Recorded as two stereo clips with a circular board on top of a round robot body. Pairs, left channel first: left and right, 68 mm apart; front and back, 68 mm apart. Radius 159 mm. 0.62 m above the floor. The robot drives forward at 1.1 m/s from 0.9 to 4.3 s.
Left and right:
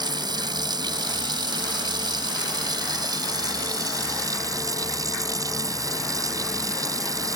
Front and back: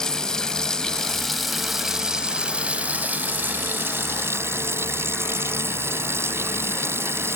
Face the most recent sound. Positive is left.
turn(degrees=-125)